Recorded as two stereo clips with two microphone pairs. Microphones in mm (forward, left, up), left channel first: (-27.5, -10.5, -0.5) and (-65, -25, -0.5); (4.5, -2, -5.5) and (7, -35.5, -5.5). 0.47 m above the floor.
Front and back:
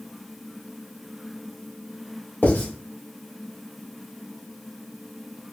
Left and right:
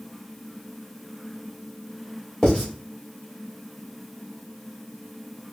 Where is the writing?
30° left, 1.9 m.